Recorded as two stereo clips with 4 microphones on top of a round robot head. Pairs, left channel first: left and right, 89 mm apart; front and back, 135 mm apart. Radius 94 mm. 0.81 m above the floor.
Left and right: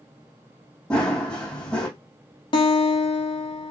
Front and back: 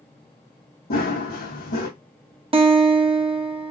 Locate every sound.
0.9 s running footsteps: 10° left, 2.5 m
2.5 s a guitar: 130° left, 1.4 m